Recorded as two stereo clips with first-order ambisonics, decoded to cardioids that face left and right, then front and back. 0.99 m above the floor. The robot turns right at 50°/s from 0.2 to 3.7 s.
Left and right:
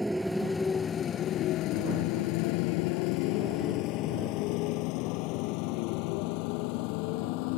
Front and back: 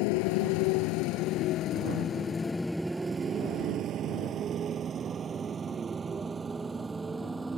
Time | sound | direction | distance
0.0 | a motorcycle | straight ahead | ?